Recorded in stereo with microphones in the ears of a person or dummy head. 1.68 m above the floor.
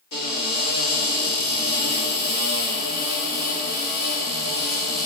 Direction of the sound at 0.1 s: 60° left (ahead or behind).